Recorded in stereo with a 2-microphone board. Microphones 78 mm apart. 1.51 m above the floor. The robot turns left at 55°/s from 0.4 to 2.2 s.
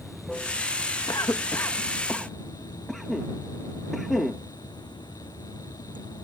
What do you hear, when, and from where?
0.0 s running water: straight behind; by 6.2 s 80° left
1.1 s a cough: 60° left (ahead or behind); by 4.4 s 5° left (ahead or behind)